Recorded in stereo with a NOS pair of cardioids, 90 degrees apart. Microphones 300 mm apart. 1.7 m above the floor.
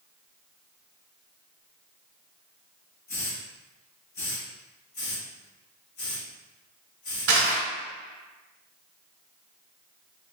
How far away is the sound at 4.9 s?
About 1.7 m.